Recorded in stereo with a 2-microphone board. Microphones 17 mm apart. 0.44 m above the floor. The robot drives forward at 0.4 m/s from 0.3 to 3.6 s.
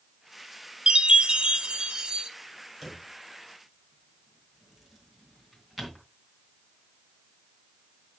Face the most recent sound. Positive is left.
turn(degrees=-10)  # may be behind; listen again after turning